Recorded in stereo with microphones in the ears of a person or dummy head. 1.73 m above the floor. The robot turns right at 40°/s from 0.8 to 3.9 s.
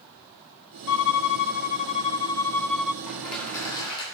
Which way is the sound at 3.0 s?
10° right.